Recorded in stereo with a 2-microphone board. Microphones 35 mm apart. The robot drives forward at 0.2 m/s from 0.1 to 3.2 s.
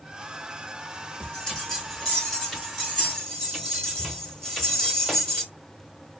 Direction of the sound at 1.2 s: 15° left (ahead or behind).